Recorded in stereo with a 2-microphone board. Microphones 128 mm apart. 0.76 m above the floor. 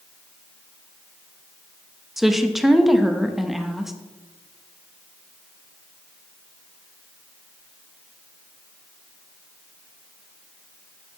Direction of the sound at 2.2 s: Centre (ahead or behind).